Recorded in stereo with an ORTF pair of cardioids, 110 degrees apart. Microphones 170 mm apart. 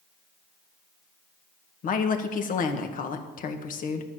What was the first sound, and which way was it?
A woman speaking, 50° left.